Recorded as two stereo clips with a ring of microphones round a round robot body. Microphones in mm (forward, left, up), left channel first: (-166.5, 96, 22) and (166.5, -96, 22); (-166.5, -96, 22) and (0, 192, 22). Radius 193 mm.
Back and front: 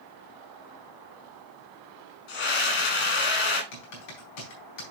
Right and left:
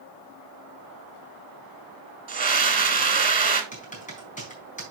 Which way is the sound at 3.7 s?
170° left.